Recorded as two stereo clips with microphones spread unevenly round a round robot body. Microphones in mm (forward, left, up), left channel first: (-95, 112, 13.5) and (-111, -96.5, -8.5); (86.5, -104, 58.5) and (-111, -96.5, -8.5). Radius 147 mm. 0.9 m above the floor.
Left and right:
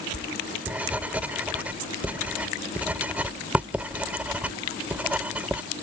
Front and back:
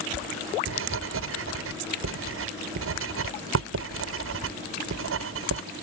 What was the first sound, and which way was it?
Writing, straight behind.